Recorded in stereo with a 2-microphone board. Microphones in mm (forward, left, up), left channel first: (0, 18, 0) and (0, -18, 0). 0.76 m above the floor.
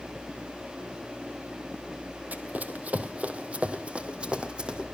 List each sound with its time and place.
2.3 s running footsteps: 50° right (ahead or behind), 1.8 m; by 4.9 s 25° right (ahead or behind), 2.5 m